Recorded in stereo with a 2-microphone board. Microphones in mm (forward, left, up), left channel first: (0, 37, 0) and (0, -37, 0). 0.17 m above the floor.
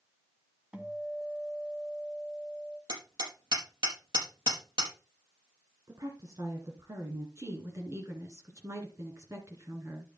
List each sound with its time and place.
0.7 s a guitar: 15° right (ahead or behind), 1.7 m
2.9 s hammering: 75° right (ahead or behind), 5 m
5.9 s a woman speaking: 55° right (ahead or behind), 1.9 m
7.4 s a woman speaking: 40° right (ahead or behind), 2.5 m